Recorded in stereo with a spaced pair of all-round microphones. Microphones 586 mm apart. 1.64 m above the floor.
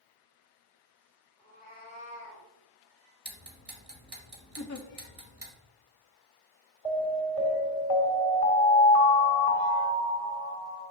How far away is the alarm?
About 2 m.